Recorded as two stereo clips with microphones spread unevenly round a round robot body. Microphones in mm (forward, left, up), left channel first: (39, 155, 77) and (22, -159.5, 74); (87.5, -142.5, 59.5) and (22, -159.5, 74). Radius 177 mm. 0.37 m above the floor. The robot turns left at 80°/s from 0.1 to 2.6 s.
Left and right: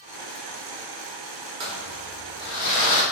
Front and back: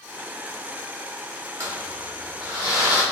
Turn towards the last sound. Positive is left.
turn(degrees=145)